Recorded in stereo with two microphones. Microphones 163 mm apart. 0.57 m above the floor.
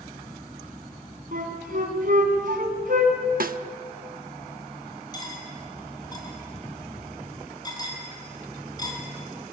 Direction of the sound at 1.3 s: 60° right (ahead or behind).